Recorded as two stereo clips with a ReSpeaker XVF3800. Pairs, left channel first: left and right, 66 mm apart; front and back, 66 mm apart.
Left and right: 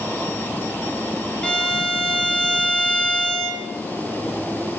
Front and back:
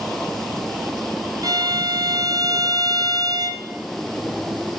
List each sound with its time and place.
1.4 s a violin: 165° left, 2.5 m